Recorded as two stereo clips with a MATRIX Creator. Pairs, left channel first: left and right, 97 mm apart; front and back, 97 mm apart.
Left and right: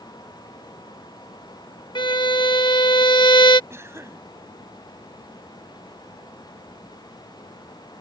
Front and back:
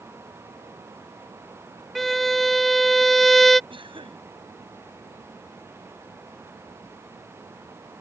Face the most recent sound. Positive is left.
turn(degrees=-150)